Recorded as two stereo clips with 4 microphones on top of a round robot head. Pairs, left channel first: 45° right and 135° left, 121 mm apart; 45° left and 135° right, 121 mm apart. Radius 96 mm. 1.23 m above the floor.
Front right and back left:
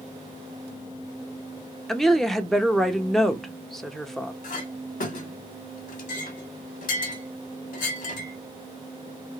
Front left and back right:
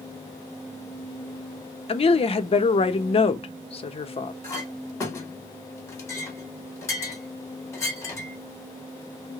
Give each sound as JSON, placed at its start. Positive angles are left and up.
{"t": 1.9, "sound": "a woman speaking", "azimuth_deg": 45, "distance_m": 0.7}
{"t": 4.4, "sound": "a clink", "azimuth_deg": -20, "distance_m": 1.0}